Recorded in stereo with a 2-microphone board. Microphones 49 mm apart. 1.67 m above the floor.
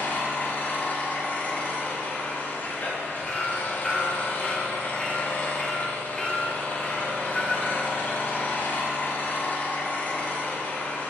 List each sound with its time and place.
0.0 s an engine running: 40° left (ahead or behind), 1.3 m
3.3 s hammering: 15° left (ahead or behind), 1.5 m